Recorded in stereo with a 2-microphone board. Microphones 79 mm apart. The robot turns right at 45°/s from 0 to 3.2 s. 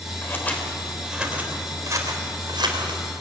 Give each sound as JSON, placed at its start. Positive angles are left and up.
{"t": 0.2, "sound": "scissors", "side_deg": 30, "distance_m": 3.5}